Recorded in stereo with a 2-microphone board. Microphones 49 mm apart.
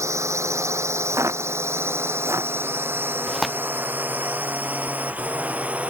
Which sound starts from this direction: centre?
Tearing paper, at 3.3 s.